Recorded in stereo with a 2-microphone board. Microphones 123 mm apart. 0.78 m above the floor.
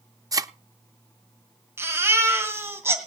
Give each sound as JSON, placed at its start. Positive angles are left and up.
{"t": 0.3, "sound": "a thud", "side_deg": -30, "distance_m": 0.5}
{"t": 1.8, "sound": "a baby crying", "side_deg": -20, "distance_m": 2.5}